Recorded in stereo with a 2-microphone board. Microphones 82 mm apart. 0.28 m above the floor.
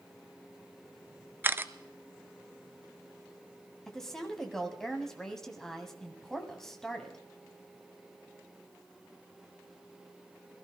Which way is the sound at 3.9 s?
5° left (ahead or behind).